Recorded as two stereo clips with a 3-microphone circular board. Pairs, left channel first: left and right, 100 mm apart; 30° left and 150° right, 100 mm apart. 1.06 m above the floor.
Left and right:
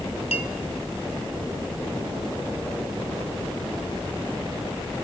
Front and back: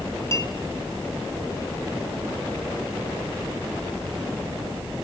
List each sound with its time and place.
0.3 s a clink: 90° left, 1.2 m